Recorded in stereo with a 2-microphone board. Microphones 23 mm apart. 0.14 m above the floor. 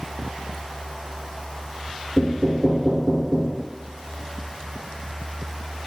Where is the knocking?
15° right (ahead or behind), 1.2 m.